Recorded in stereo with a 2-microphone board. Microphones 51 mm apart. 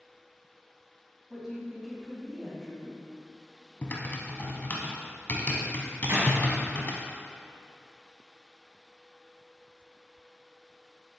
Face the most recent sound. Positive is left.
turn(degrees=-60)  # may be behind; listen again after turning